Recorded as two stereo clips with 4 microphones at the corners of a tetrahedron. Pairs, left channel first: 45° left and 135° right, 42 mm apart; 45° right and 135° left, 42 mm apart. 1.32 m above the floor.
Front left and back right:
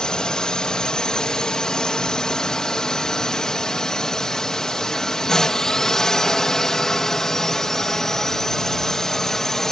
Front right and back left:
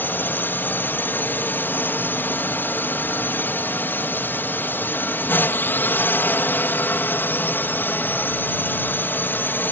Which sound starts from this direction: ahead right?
A drone, at 0.0 s.